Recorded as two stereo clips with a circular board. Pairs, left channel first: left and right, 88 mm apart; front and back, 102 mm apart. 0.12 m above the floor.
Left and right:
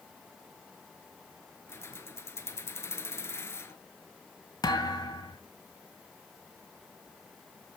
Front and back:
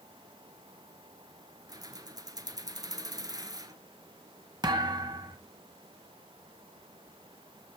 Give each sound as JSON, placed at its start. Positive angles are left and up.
{"t": 1.7, "sound": "keys jangling", "azimuth_deg": 140, "distance_m": 1.3}
{"t": 4.6, "sound": "a thud", "azimuth_deg": 130, "distance_m": 2.5}